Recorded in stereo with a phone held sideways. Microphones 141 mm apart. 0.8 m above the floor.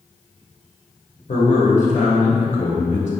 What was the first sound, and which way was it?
A man speaking, 65° left (ahead or behind).